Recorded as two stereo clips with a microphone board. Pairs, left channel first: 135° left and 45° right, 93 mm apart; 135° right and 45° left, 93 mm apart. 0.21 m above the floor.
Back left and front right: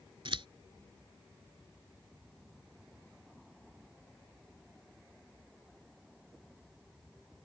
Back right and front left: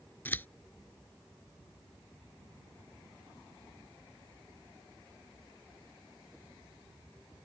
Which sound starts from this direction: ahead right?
Scissors, at 0.2 s.